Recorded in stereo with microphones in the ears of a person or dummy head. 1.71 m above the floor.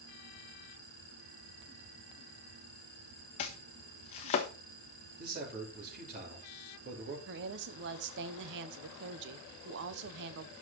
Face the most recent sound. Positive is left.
turn(degrees=-65)  # may be behind; listen again after turning